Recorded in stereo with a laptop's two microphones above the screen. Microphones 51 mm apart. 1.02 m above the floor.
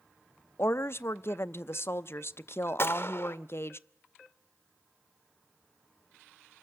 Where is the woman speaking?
55° left (ahead or behind), 0.6 m.